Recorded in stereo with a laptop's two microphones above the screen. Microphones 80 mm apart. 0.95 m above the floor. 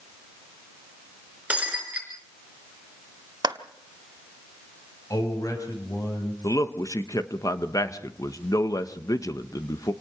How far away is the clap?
About 1.4 m.